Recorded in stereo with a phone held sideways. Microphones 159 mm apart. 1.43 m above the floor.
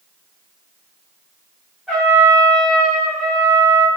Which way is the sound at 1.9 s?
Centre (ahead or behind).